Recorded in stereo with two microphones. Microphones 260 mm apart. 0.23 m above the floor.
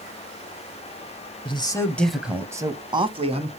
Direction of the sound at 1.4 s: 20° left (ahead or behind).